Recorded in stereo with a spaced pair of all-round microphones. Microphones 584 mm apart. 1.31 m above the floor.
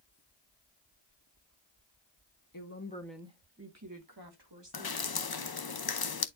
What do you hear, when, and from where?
2.5 s a woman speaking: 35° left (ahead or behind), 1.2 m; by 5.0 s 50° right (ahead or behind), 3 m
4.7 s dripping: 40° left (ahead or behind), 0.6 m